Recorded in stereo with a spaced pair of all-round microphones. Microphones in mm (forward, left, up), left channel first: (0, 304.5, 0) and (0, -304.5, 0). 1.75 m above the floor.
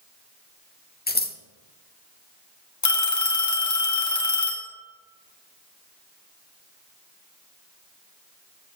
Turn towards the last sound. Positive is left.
turn(degrees=30)  # may be behind; listen again after turning